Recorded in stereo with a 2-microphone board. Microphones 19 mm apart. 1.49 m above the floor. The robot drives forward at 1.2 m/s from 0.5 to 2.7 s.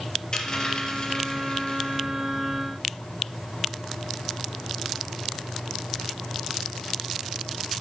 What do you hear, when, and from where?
0.3 s a dropped coin: 35° left (ahead or behind), 4 m; by 2.0 s 55° left (ahead or behind), 3 m